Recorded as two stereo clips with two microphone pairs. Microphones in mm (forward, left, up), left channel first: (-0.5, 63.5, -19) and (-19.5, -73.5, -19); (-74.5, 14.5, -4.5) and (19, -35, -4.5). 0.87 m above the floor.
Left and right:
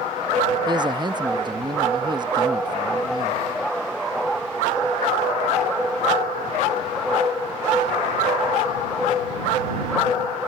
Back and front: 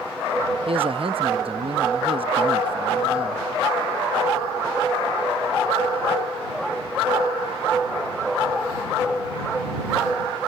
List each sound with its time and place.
0.7 s a man speaking: 45° right